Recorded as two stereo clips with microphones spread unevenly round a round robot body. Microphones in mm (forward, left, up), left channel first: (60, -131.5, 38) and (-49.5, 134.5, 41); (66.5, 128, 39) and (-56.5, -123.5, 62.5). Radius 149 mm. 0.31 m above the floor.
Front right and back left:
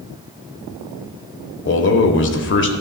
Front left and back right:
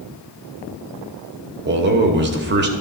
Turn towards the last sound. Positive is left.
turn(degrees=-80)